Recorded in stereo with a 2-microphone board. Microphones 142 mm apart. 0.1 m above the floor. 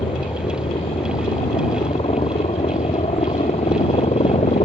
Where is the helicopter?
35° left (ahead or behind); by 4.7 s 50° left (ahead or behind).